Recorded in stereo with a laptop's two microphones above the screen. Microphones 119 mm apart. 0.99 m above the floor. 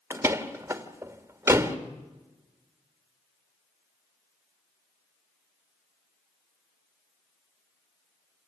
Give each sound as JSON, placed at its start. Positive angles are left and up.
{"t": 0.1, "sound": "a door slam", "side_deg": -20, "distance_m": 1.8}